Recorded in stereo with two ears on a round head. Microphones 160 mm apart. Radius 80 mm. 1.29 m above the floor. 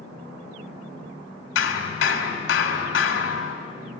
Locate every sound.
1.6 s hammering: 80° left, 3 m